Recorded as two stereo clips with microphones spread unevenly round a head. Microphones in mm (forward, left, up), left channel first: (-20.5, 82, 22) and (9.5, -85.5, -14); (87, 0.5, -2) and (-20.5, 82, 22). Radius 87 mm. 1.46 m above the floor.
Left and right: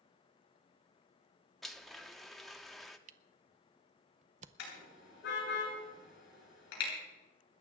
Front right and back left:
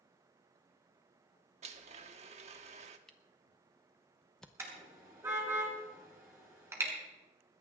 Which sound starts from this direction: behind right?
A camera shutter, at 3.1 s.